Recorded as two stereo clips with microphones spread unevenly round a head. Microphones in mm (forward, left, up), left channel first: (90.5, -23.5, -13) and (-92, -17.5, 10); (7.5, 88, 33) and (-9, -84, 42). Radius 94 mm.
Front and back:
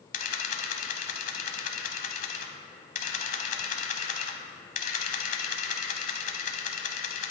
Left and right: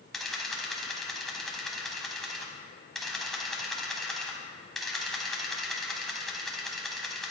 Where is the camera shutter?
10° right, 1.1 m.